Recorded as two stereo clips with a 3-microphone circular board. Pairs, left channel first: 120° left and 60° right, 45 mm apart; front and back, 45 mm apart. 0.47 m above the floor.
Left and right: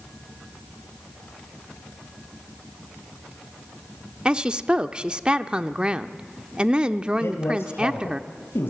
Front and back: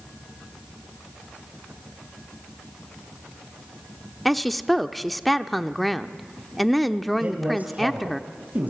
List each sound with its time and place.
4.2 s a woman speaking: 90° right, 0.7 m
7.2 s a man speaking: 135° left, 2.5 m